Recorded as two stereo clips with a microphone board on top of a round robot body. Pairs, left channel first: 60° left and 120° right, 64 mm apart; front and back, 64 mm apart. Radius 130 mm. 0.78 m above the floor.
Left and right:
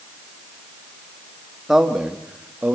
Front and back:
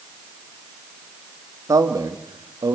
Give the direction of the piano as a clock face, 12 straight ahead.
No piano in this recording.